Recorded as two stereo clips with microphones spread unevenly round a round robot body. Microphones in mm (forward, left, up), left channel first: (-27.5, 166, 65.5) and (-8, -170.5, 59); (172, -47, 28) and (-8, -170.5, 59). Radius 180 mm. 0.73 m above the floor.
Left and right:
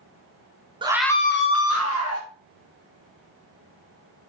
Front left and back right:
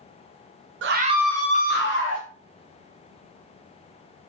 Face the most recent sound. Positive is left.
turn(degrees=45)